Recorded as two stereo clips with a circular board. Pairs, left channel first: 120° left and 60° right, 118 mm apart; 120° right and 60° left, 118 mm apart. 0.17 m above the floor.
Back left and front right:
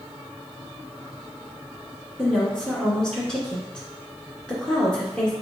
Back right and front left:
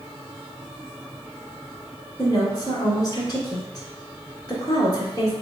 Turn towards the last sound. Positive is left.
turn(degrees=-160)